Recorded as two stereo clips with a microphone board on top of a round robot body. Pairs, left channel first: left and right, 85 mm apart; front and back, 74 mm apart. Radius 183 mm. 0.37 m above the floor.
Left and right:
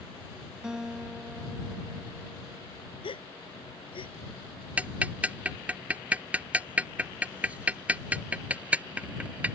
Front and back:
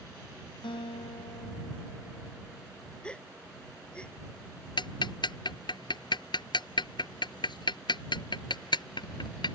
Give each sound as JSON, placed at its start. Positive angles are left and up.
{"t": 0.6, "sound": "a guitar", "azimuth_deg": -10}
{"t": 3.0, "sound": "a gasp", "azimuth_deg": 80}
{"t": 4.8, "sound": "ticking", "azimuth_deg": -15}